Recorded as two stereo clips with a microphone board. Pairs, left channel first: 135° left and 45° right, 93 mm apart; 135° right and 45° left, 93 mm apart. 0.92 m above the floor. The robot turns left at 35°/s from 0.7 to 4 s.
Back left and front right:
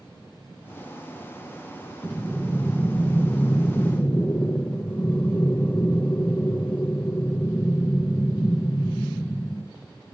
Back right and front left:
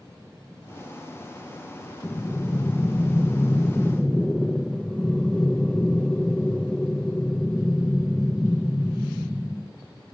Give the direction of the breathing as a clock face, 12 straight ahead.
4 o'clock.